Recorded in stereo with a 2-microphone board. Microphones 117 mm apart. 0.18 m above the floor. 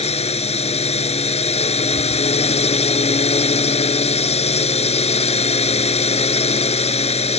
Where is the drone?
60° left (ahead or behind).